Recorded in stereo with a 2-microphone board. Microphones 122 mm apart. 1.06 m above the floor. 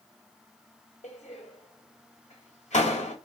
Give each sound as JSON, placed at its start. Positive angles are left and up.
{"t": 1.0, "sound": "a door slam", "side_deg": 85, "distance_m": 4.0}